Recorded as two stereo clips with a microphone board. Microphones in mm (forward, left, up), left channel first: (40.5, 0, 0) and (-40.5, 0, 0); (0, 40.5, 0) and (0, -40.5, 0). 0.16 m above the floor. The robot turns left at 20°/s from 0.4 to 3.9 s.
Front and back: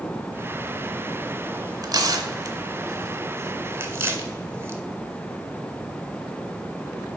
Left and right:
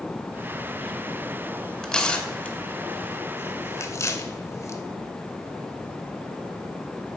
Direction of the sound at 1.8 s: 170° left.